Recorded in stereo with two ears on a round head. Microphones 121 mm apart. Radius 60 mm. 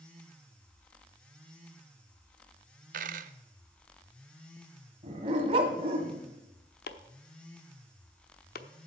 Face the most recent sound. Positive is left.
turn(degrees=80)